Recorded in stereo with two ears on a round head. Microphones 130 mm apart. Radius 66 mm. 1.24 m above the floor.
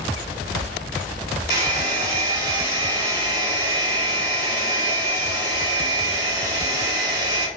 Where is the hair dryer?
25° right (ahead or behind), 1.0 m.